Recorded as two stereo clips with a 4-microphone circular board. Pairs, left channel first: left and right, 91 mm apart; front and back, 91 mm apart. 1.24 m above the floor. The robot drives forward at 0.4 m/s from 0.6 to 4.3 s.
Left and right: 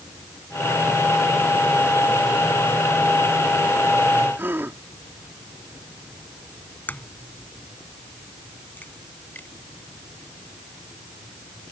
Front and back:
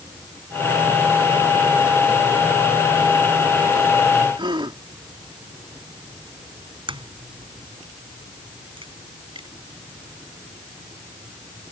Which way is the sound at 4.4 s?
155° right.